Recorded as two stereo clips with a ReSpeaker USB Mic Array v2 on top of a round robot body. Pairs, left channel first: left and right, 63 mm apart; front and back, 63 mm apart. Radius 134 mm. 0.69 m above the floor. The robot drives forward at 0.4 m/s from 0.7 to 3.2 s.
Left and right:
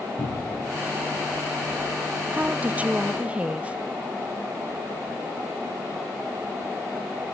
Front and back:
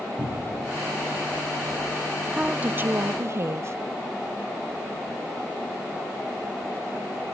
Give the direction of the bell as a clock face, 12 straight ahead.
I don't hear a bell.